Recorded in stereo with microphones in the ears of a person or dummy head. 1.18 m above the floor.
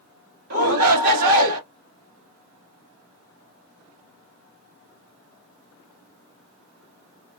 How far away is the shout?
About 1.6 m.